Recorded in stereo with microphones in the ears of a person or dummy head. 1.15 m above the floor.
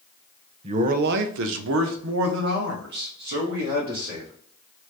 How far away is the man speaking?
About 0.5 m.